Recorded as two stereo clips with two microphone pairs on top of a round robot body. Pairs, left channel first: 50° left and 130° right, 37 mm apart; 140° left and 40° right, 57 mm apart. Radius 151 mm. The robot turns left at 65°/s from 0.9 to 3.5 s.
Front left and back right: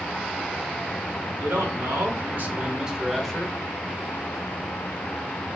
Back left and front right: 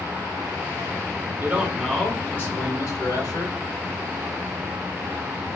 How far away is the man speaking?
About 1.5 m.